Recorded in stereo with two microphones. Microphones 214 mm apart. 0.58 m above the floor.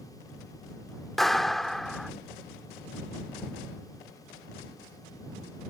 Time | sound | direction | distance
1.2 | a clap | centre (ahead or behind) | ?